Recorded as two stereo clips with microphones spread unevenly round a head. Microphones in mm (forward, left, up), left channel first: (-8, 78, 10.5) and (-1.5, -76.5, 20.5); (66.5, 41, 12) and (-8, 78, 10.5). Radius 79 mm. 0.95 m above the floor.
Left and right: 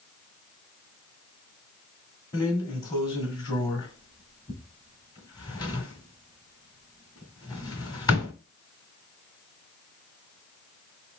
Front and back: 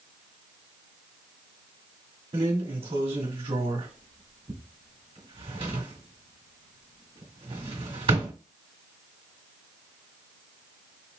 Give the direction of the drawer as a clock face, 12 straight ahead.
7 o'clock.